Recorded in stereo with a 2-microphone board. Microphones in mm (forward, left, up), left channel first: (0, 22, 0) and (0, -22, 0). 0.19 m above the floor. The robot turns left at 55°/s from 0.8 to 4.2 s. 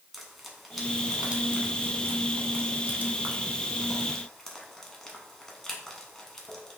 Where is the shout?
I don't hear a shout.